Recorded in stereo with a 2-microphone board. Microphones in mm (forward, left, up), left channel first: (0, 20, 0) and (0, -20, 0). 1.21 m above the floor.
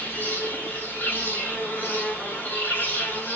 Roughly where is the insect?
Left.